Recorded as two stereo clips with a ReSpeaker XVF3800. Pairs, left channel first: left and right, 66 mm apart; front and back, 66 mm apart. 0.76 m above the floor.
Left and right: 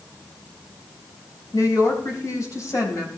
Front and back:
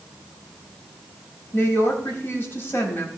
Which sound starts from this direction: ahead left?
A woman speaking, at 1.5 s.